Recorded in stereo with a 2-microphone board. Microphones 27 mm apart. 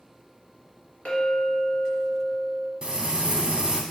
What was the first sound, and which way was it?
A clink, 45° left (ahead or behind).